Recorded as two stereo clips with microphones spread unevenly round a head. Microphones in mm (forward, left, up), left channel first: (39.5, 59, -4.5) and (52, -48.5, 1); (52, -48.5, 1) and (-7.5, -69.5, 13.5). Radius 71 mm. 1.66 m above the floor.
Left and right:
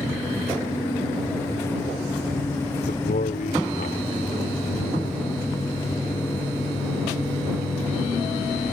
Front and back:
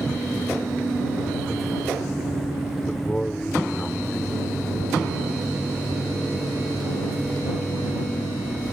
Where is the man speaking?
105° left.